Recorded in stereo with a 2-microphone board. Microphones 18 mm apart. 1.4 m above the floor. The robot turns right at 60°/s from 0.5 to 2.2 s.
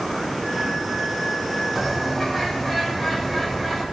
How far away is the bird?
About 6 m.